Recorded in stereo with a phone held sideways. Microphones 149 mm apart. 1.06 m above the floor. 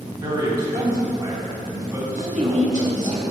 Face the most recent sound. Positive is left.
turn(degrees=-55)  # may be behind; listen again after turning